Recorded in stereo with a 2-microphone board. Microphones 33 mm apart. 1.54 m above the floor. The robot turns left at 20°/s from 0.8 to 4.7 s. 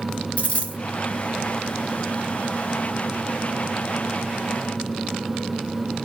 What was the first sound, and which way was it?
A dropped coin, 40° left (ahead or behind).